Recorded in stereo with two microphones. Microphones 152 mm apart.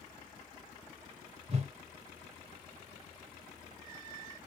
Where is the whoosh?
45° right (ahead or behind), 0.9 m.